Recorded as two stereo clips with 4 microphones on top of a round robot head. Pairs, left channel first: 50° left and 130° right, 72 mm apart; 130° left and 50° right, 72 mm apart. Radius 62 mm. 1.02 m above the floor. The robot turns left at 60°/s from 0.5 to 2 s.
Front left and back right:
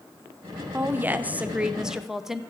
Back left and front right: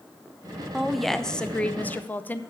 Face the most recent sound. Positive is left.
turn(degrees=155)